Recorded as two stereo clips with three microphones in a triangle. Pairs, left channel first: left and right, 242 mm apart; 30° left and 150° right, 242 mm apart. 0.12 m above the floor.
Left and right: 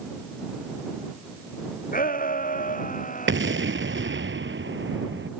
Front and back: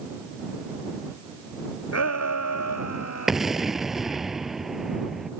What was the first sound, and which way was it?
A shout, 35° left.